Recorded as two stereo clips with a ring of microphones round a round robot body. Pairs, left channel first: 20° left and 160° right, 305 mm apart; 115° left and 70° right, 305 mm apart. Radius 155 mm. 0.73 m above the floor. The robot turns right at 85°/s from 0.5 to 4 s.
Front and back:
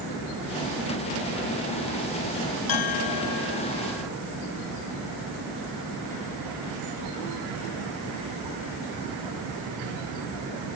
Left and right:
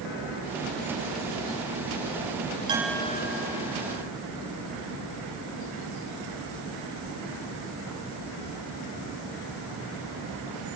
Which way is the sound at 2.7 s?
10° left.